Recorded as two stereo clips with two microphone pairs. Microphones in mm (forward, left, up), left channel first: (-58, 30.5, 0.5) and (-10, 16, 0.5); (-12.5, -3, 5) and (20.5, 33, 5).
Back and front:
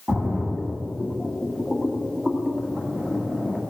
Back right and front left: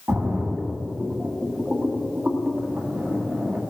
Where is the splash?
40° left, 1.9 m.